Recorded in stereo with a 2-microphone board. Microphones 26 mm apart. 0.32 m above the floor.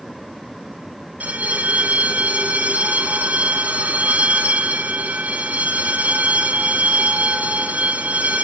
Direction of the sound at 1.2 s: 80° right.